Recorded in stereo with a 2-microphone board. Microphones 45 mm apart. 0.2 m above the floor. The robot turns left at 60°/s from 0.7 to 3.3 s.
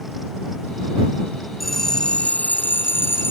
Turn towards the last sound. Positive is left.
turn(degrees=80)